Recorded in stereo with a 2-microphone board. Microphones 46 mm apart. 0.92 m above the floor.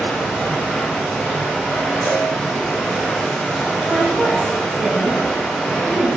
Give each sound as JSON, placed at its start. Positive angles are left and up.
{"t": 0.0, "sound": "running water", "side_deg": 10, "distance_m": 0.9}
{"t": 2.0, "sound": "a cowbell", "side_deg": -60, "distance_m": 0.8}
{"t": 3.9, "sound": "a woman speaking", "side_deg": -35, "distance_m": 1.1}